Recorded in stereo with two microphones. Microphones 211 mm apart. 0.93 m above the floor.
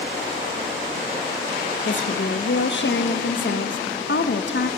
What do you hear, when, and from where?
1.9 s a woman speaking: 60° left (ahead or behind), 0.6 m